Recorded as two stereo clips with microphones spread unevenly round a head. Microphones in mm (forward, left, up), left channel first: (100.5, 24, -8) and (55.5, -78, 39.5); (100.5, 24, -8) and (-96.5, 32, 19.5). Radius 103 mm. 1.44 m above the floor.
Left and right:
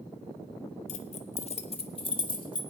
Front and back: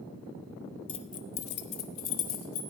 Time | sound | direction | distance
0.9 | keys jangling | 60° left | 0.7 m